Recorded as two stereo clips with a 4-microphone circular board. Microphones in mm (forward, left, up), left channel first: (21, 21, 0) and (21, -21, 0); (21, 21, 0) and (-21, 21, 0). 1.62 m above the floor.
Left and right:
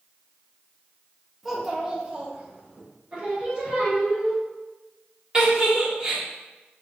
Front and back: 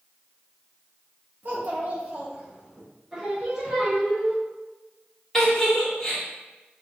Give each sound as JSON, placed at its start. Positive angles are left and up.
{"t": 1.4, "sound": "a child speaking", "azimuth_deg": -175, "distance_m": 1.1}
{"t": 3.1, "sound": "singing", "azimuth_deg": -120, "distance_m": 1.2}
{"t": 5.3, "sound": "a giggle", "azimuth_deg": -55, "distance_m": 1.2}